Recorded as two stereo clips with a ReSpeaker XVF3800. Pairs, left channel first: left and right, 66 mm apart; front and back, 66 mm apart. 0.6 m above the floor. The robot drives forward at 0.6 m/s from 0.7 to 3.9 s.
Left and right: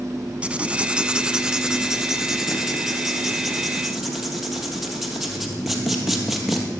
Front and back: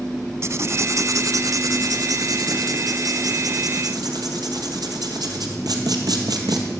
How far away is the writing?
About 0.6 m.